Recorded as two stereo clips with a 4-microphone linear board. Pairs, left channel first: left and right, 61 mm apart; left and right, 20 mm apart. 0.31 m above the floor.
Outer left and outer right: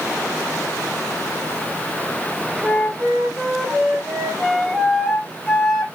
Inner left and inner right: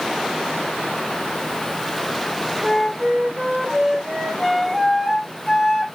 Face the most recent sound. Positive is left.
turn(degrees=-10)  # may be behind; listen again after turning